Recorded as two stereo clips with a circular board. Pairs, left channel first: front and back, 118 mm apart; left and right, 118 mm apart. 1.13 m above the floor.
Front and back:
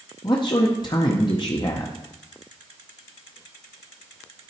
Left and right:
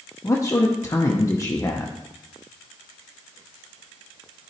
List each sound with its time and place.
0.2 s a man speaking: 35° left, 0.7 m